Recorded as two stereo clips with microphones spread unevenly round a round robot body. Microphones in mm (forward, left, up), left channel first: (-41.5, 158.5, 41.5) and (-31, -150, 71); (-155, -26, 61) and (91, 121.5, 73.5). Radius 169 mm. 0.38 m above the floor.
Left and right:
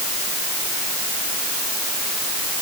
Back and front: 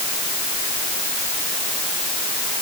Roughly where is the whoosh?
No whoosh in this recording.